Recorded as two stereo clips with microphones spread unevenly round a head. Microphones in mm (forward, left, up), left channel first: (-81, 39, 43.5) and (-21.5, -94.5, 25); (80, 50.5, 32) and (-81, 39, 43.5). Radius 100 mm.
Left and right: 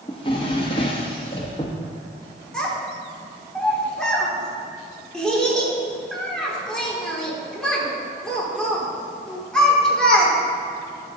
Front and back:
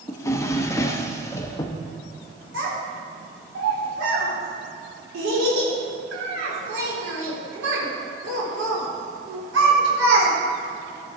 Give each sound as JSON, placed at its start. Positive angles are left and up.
{"t": 0.1, "sound": "a drawer", "azimuth_deg": 75, "distance_m": 0.7}
{"t": 2.5, "sound": "a child speaking", "azimuth_deg": -160, "distance_m": 3.5}